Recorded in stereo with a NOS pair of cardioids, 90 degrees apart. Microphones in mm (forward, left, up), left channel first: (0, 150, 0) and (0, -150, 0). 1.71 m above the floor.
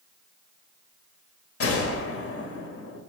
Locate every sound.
1.6 s a gunshot: 45° left, 1.1 m